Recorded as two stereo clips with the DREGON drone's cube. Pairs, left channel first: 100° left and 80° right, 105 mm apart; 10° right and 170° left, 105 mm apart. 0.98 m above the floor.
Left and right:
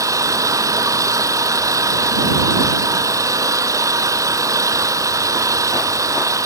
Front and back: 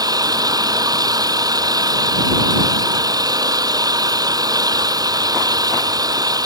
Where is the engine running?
140° right.